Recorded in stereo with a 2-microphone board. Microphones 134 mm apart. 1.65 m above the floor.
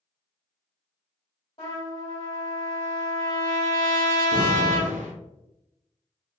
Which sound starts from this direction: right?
An explosion, at 4.3 s.